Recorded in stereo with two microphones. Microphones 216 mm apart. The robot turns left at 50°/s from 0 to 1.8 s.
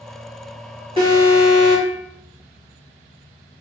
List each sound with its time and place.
1.0 s an alarm: 155° right, 1.8 m; by 2.0 s 160° left, 1.8 m